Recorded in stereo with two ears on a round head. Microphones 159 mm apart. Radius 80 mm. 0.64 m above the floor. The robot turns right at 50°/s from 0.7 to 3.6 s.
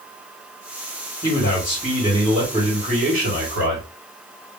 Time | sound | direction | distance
1.2 | a man speaking | 140° left | 2 m